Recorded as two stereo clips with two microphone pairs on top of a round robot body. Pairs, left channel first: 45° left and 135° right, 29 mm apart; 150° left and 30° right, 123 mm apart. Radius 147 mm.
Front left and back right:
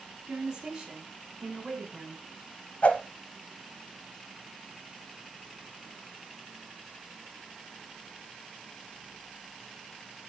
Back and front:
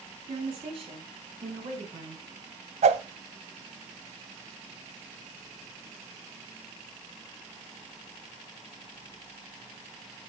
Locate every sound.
0.3 s a woman speaking: 75° right, 4 m; by 2.2 s 55° right, 4.5 m
2.8 s a whoosh: straight ahead, 0.7 m